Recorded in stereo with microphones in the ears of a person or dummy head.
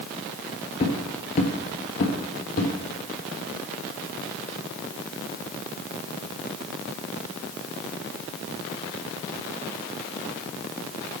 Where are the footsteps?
25° left (ahead or behind), 1.6 m; by 2.7 s 50° left (ahead or behind), 2.5 m.